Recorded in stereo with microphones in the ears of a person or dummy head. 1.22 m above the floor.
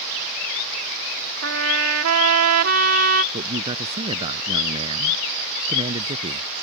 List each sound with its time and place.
1.4 s a trumpet: 80° right
3.3 s a man speaking: 30° right (ahead or behind)